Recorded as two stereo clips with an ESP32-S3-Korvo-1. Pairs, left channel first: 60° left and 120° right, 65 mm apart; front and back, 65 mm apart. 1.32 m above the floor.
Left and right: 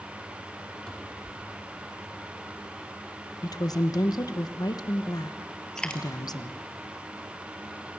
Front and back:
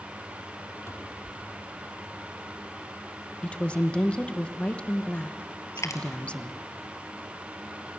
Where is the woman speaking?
75° left, 1.1 m.